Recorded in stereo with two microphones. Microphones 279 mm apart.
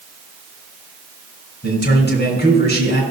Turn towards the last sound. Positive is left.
turn(degrees=40)  # may be behind; listen again after turning